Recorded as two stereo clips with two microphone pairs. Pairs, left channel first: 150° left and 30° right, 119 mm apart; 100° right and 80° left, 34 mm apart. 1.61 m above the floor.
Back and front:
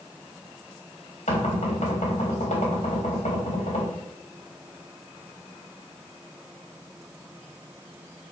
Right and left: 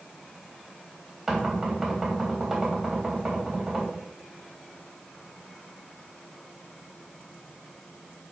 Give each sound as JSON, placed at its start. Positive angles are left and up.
{"t": 1.3, "sound": "knocking", "azimuth_deg": 160, "distance_m": 3.5}